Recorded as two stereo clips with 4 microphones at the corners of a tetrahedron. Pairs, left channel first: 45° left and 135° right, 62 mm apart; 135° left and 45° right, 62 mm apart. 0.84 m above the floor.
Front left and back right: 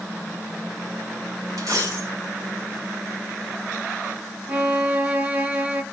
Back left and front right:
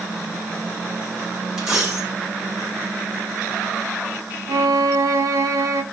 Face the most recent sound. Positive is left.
turn(degrees=-70)